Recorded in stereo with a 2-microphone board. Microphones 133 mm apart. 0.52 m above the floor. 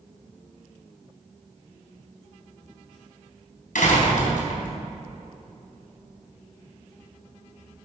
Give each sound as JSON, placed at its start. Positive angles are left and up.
{"t": 3.8, "sound": "a door slam", "side_deg": 80, "distance_m": 3.5}